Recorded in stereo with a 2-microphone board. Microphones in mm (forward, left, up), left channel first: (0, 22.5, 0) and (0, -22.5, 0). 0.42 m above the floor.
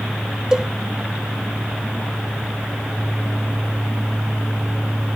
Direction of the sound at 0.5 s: 15° right (ahead or behind).